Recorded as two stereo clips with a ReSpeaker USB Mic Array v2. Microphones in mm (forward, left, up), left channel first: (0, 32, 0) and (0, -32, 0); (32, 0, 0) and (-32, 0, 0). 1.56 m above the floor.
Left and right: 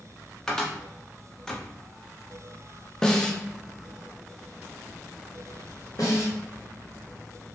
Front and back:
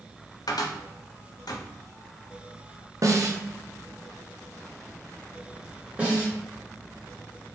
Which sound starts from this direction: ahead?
A cupboard door, at 0.5 s.